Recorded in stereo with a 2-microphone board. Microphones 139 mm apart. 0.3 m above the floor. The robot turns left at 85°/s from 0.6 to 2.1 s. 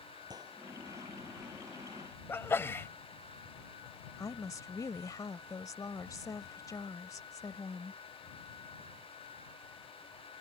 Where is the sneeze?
15° left (ahead or behind).